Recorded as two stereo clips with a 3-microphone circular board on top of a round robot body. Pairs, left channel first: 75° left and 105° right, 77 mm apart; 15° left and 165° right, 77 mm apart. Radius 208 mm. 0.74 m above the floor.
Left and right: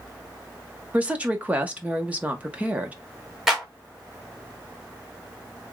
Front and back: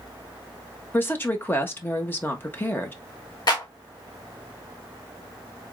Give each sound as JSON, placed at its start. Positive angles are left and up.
{"t": 0.9, "sound": "a woman speaking", "azimuth_deg": -40, "distance_m": 1.3}
{"t": 3.5, "sound": "a clap", "azimuth_deg": -20, "distance_m": 1.7}